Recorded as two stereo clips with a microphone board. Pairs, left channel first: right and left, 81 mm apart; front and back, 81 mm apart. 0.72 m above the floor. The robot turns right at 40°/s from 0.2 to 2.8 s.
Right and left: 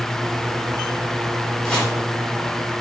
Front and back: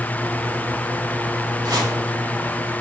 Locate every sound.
1.6 s chopping: 170° right, 2.5 m; by 1.9 s 160° right, 2.5 m